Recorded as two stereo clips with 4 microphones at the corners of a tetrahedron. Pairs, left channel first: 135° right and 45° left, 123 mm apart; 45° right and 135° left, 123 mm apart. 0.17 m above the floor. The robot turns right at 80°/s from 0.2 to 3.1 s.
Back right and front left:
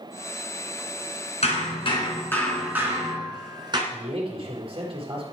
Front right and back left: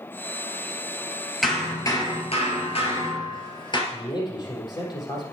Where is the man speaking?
5° left, 4 m.